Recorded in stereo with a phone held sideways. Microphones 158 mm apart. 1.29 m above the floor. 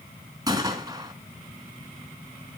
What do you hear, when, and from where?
0.5 s a gunshot: 20° right (ahead or behind), 3.5 m